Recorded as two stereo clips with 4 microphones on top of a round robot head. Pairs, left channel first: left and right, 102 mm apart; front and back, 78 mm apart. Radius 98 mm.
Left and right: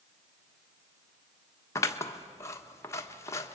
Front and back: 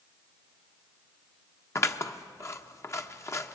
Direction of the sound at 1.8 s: 40° left.